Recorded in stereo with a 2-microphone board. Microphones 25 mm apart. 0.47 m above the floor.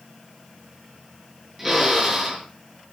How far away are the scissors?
No scissors in this recording.